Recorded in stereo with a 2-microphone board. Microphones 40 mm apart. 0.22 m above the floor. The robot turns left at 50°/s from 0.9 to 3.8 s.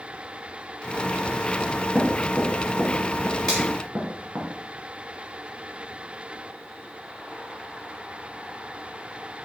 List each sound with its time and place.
1.6 s knocking: 40° left (ahead or behind), 2.5 m; by 4.5 s 55° right (ahead or behind), 2.5 m
3.5 s a finger snap: 15° left (ahead or behind), 4 m; by 3.6 s 5° left (ahead or behind), 4 m